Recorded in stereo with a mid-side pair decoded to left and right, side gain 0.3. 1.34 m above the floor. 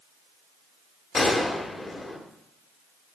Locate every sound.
1.1 s a gunshot: 40° left, 2 m